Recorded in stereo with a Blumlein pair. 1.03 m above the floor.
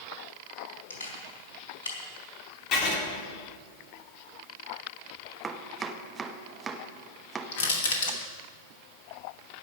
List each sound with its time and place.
0.9 s a camera shutter: 65° left, 4 m
2.7 s writing: 40° left, 2.5 m
5.4 s chopping: 15° right, 1.1 m
7.5 s crushing: 55° left, 2.5 m